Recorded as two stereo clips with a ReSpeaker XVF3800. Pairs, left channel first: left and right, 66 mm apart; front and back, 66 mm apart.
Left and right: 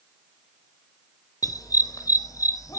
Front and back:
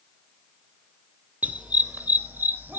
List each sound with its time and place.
1.4 s a dog barking: 110° left, 1.1 m; by 2.8 s 120° left, 2 m